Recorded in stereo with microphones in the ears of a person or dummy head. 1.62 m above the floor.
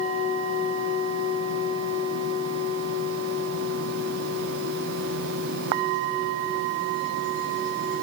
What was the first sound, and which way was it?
Only background noise.